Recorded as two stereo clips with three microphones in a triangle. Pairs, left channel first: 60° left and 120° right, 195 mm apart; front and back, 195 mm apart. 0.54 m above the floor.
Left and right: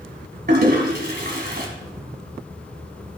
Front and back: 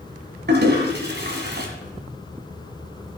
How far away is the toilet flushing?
About 2 m.